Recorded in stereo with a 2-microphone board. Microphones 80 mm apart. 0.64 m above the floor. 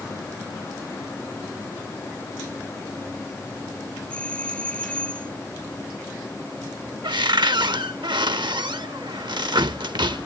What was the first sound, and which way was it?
A doorbell, 15° left (ahead or behind).